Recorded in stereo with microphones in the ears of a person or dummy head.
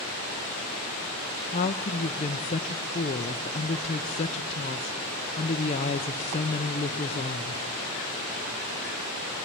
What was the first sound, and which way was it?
A woman speaking, 30° left (ahead or behind).